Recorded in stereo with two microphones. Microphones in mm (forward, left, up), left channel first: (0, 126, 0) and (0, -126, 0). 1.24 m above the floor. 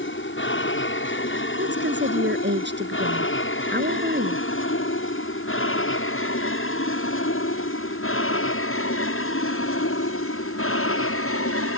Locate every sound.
0.0 s an aircraft: 50° left (ahead or behind); by 11.8 s 60° left (ahead or behind)
1.6 s a woman speaking: 45° right (ahead or behind)